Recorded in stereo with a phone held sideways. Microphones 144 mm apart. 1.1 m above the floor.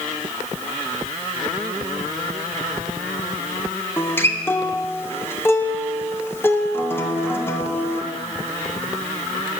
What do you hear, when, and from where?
4.0 s a guitar: 15° left (ahead or behind), 1.1 m